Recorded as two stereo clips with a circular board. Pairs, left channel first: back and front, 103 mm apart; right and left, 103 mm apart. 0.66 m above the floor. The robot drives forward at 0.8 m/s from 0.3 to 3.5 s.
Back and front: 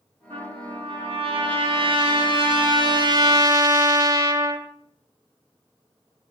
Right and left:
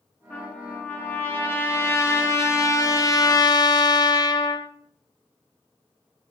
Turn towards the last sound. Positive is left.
turn(degrees=-45)